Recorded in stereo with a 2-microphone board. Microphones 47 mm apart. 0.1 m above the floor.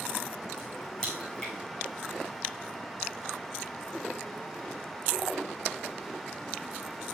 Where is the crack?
15° left (ahead or behind), 4.5 m.